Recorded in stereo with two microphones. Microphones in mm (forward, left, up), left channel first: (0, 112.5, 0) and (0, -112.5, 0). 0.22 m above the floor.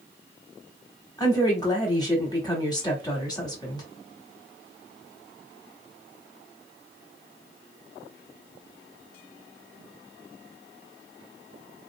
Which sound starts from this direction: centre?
A woman speaking, at 1.2 s.